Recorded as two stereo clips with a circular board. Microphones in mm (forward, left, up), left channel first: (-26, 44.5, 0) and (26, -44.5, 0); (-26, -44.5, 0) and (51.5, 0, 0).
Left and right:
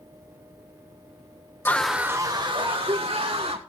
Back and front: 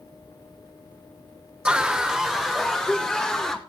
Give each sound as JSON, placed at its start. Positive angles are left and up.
{"t": 1.6, "sound": "a scream", "azimuth_deg": 90, "distance_m": 0.9}